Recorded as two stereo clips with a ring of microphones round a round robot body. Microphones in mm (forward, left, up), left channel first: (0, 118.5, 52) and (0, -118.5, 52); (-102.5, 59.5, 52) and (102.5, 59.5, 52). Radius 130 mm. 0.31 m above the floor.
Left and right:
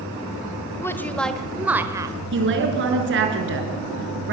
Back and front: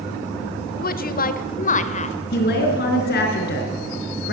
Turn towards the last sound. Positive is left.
turn(degrees=-130)